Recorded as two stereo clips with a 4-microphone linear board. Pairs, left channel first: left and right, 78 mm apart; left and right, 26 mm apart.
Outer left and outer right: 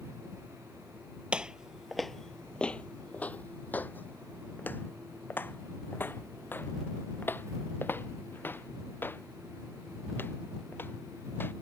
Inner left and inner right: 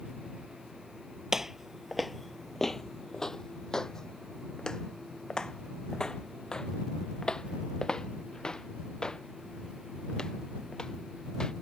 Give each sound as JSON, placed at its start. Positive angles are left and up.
{"t": 1.3, "sound": "footsteps", "side_deg": -15}